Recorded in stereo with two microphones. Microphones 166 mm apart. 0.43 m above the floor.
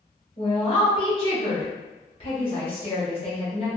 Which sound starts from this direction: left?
A woman speaking, at 0.4 s.